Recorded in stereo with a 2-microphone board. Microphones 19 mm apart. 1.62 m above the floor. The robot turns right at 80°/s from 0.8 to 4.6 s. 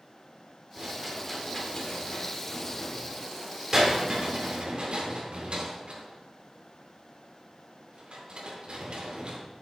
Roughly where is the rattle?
Right.